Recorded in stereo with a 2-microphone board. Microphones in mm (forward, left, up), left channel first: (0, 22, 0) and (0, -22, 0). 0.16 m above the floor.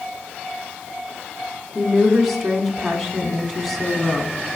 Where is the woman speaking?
Centre (ahead or behind), 1.4 m.